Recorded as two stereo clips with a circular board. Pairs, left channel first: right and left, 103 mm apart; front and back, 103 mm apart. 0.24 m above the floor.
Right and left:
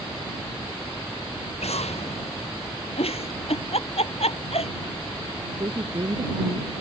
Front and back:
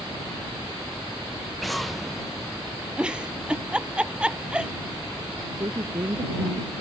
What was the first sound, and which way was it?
An explosion, 90° right.